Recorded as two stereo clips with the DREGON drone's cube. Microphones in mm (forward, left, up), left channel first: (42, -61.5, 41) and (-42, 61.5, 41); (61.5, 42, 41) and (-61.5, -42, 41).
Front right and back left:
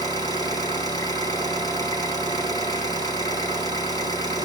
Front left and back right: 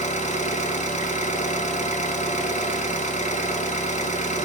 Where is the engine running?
10° left, 2 m.